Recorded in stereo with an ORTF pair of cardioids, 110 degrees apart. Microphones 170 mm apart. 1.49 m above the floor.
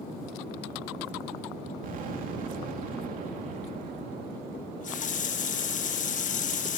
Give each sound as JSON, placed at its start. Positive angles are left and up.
{"t": 1.8, "sound": "an explosion", "azimuth_deg": -55, "distance_m": 2.5}
{"t": 4.5, "sound": "a running tap", "azimuth_deg": 50, "distance_m": 1.4}